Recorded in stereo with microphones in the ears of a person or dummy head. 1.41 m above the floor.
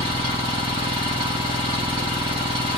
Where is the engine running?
25° right (ahead or behind), 1.0 m.